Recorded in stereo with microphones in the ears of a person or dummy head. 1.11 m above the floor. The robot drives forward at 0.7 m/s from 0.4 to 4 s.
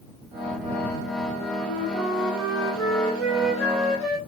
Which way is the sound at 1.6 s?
10° right (ahead or behind).